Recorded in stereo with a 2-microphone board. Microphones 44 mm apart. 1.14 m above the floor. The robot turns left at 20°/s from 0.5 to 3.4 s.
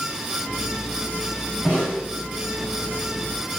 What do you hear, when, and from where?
1.6 s a snare drum: 40° left (ahead or behind), 1.4 m; by 2.0 s 35° left (ahead or behind), 1.4 m